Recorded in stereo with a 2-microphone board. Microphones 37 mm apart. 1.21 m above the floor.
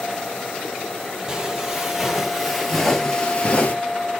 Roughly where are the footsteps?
Right.